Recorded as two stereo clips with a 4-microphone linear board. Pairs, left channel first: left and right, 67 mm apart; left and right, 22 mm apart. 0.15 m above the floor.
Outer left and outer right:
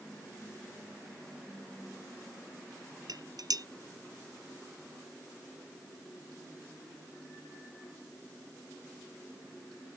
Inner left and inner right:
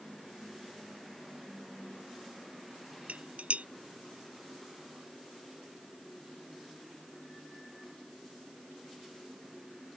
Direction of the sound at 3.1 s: 70° right (ahead or behind).